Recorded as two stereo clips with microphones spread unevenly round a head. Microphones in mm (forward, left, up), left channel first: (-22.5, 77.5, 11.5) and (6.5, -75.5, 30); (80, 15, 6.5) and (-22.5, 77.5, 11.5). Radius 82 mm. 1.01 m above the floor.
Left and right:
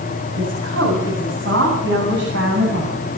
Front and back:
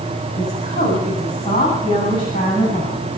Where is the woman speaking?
80° right, 9.5 m; by 3.0 s 95° right, 9.5 m.